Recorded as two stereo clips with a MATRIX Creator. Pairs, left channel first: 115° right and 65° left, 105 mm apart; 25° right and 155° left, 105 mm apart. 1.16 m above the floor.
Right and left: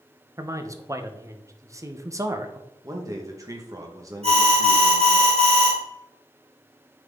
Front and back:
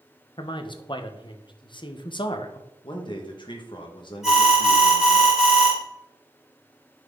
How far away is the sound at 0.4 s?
About 1.0 m.